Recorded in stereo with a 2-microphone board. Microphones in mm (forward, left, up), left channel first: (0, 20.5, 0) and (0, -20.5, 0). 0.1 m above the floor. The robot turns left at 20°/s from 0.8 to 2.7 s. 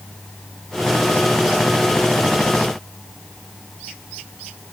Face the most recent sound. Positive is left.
No sound to turn to.